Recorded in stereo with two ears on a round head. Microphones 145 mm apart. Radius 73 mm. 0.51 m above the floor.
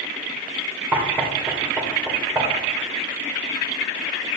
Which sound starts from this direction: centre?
Knocking, at 0.9 s.